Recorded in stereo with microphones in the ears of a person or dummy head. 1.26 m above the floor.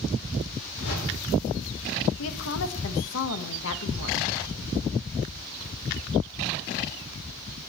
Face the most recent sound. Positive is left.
turn(degrees=75)  # may be behind; listen again after turning